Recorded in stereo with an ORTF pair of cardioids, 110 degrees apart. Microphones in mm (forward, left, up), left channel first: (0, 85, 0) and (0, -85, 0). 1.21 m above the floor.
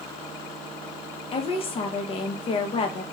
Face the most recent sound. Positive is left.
turn(degrees=35)